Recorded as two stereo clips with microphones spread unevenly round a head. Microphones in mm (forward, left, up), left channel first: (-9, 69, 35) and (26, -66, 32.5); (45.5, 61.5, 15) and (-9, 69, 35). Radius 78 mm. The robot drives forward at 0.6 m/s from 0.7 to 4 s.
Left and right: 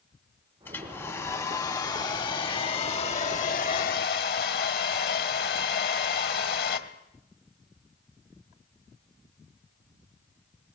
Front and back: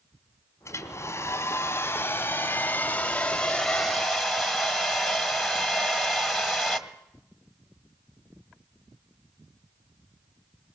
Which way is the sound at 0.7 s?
30° left.